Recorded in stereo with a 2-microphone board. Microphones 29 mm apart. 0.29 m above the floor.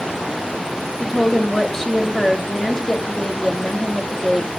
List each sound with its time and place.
1.0 s a woman speaking: 15° left (ahead or behind), 1.4 m